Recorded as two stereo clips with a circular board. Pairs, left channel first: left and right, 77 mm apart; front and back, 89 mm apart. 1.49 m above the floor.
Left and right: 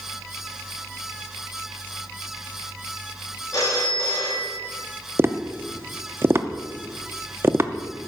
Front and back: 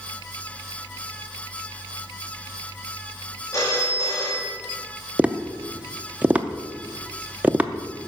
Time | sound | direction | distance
3.5 | a phone ringing | 55° left | 2 m
5.2 | tapping | 115° right | 0.6 m